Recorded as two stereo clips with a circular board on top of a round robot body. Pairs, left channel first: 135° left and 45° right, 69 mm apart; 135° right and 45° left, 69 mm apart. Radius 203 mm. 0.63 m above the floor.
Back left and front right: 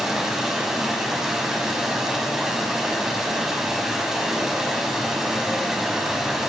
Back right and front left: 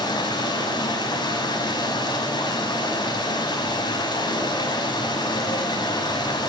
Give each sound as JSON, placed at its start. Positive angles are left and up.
{"t": 0.0, "sound": "running water", "azimuth_deg": -130, "distance_m": 5.5}